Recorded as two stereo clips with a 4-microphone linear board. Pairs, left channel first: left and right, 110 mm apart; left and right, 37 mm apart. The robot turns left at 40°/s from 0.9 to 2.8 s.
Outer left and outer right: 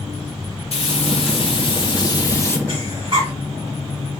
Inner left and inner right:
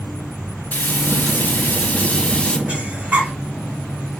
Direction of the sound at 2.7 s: 50° right (ahead or behind).